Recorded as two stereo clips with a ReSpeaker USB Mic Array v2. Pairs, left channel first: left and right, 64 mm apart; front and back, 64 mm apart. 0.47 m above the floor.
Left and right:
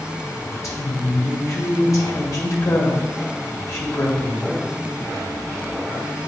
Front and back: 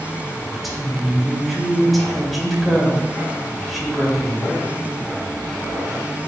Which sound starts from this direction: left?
A woman speaking, at 0.5 s.